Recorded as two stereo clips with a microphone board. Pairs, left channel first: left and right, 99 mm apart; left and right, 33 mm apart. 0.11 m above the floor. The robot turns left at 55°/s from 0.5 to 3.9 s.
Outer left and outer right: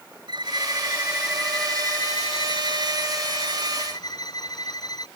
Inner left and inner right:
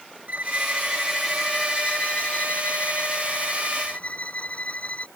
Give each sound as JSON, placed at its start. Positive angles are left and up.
{"t": 0.3, "sound": "a violin", "azimuth_deg": -130}